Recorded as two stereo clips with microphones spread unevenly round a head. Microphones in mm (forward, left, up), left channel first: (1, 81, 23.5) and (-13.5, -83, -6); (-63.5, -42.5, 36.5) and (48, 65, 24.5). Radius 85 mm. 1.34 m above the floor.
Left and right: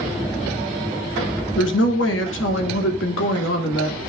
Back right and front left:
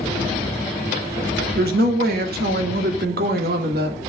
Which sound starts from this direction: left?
A woman speaking, at 1.6 s.